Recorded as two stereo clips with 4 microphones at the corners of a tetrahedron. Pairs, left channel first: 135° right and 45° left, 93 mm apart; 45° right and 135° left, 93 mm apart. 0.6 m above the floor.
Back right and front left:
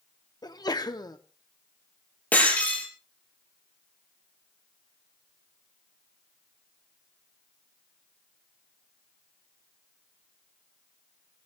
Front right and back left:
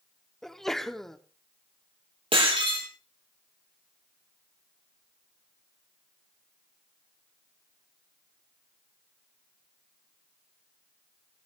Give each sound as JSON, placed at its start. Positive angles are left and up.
{"t": 0.4, "sound": "a sneeze", "azimuth_deg": -130, "distance_m": 1.1}
{"t": 2.3, "sound": "breaking glass", "azimuth_deg": 150, "distance_m": 5.0}